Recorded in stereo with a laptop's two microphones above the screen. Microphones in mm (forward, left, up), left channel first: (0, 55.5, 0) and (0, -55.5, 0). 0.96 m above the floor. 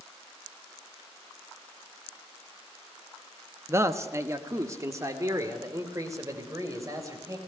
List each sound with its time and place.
3.7 s a man speaking: 25° right (ahead or behind), 0.9 m; by 7.4 s 30° right (ahead or behind), 4.5 m